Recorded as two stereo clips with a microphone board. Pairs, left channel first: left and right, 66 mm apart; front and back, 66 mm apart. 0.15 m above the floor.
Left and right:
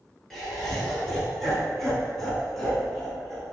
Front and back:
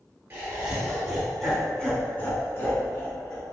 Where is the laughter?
170° left, 1.1 m; by 3.5 s 5° left, 1.7 m.